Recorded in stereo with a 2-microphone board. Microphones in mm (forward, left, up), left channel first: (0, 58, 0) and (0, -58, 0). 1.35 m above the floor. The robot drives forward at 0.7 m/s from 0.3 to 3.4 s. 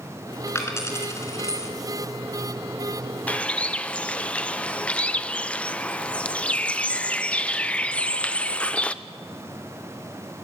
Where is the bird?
15° left (ahead or behind), 0.6 m; by 8.9 s 10° left (ahead or behind), 0.6 m.